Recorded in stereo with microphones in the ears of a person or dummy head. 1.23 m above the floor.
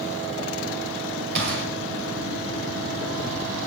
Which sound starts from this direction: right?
A gunshot, at 1.4 s.